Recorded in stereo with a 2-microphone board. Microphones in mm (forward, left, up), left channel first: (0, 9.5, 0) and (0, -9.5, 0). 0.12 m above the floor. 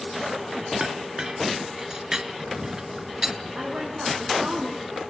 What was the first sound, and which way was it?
A clink, 30° right (ahead or behind).